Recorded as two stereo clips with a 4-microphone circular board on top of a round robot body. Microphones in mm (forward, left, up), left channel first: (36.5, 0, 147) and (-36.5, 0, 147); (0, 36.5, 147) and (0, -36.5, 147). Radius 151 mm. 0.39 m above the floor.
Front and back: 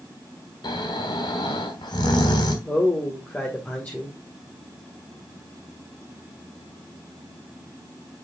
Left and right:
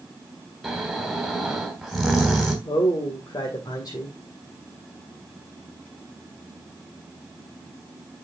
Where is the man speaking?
70° left, 2.5 m.